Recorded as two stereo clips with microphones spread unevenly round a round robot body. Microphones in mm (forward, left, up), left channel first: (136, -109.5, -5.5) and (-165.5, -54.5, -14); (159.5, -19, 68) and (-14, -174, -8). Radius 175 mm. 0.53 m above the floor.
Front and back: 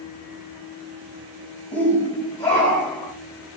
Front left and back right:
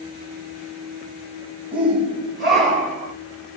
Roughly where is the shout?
Right.